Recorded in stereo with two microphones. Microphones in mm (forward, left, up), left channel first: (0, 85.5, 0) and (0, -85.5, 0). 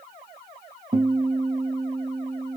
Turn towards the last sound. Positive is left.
turn(degrees=-35)  # may be behind; listen again after turning